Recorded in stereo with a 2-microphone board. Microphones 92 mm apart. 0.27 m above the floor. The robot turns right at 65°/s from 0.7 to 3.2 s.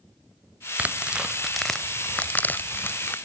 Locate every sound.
0.8 s tearing paper: 15° right (ahead or behind), 0.6 m; by 3.1 s 20° left (ahead or behind), 0.6 m